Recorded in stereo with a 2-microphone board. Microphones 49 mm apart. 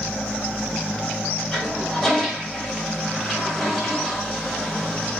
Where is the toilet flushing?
Centre (ahead or behind), 3 m.